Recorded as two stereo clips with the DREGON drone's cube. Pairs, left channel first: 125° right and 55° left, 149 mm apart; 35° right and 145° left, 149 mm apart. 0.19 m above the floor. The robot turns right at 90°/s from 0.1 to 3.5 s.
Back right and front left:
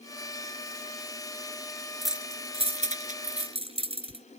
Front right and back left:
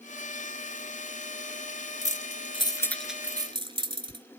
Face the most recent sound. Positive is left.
turn(degrees=95)